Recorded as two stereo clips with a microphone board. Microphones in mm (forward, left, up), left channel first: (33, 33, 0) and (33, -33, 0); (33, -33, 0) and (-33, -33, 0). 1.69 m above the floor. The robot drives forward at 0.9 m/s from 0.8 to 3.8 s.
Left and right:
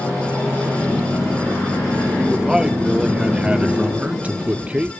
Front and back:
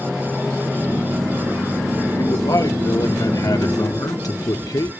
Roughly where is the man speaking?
Ahead.